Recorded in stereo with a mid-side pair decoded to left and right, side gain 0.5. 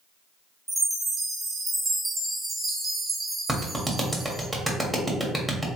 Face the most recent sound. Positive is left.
turn(degrees=-10)